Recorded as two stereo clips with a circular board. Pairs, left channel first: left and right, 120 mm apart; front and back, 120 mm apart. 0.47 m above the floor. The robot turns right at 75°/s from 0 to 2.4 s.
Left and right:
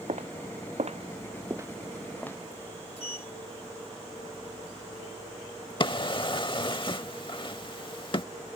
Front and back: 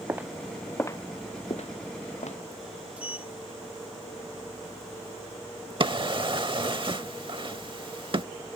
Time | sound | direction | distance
0.1 | footsteps | 110° right | ?
3.0 | a sliding door | 100° left | ?
5.8 | a drawer | 135° left | ?